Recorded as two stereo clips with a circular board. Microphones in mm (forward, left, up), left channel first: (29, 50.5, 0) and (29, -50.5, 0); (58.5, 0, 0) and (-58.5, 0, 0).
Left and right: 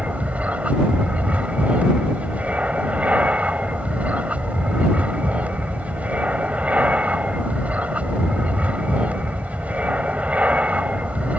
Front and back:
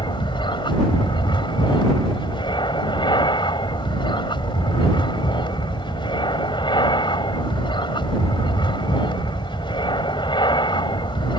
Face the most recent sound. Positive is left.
turn(degrees=-20)